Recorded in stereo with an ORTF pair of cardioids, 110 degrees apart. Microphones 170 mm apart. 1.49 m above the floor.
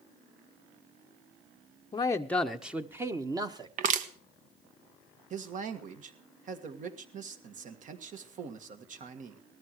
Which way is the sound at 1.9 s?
25° left.